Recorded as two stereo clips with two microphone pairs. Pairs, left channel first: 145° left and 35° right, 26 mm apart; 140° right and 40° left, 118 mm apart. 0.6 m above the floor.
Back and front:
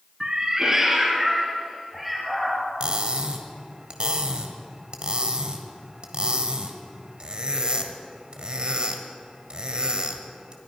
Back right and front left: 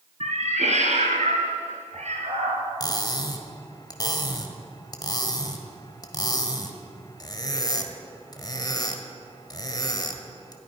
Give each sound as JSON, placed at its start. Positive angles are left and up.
{"t": 0.2, "sound": "a cat meowing", "azimuth_deg": 25, "distance_m": 1.8}
{"t": 2.8, "sound": "cutlery clinking", "azimuth_deg": -85, "distance_m": 1.4}